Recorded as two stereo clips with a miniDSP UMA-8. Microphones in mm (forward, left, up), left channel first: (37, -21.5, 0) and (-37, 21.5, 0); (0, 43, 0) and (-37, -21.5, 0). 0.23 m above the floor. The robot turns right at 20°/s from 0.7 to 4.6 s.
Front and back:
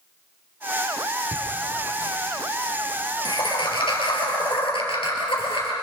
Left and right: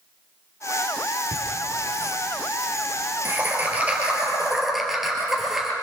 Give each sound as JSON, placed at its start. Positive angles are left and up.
{"t": 1.3, "sound": "laughter", "azimuth_deg": -100, "distance_m": 5.0}